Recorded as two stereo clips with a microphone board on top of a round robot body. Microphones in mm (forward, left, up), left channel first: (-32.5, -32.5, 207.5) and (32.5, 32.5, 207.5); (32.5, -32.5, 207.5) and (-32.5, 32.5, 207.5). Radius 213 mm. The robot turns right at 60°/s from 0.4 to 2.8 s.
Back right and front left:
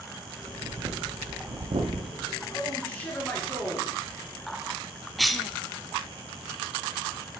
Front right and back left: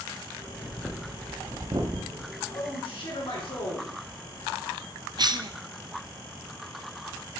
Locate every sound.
0.4 s breathing: 5° right, 0.5 m; by 2.3 s 110° left, 0.5 m
2.5 s a man speaking: 75° right, 3.5 m; by 4.7 s 55° right, 3.5 m
5.2 s a cough: 135° left, 0.6 m